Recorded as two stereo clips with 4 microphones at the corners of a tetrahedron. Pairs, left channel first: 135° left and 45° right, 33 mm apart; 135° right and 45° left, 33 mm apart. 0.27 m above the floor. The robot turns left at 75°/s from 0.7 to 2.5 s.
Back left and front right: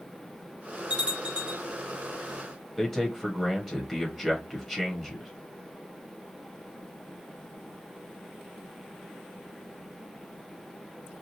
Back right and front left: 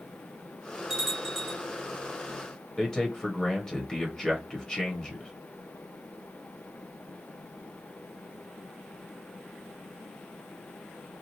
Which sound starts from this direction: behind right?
A man speaking, at 2.8 s.